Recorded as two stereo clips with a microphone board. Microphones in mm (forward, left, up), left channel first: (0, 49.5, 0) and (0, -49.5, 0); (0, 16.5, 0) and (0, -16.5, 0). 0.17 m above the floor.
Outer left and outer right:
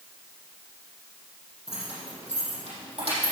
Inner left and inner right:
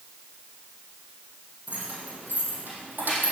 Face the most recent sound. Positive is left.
turn(degrees=-75)  # may be behind; listen again after turning